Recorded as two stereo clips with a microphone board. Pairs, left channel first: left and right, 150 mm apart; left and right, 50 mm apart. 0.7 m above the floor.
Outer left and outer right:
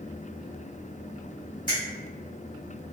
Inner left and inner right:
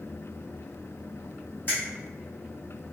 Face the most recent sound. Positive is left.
turn(degrees=30)  # may be behind; listen again after turning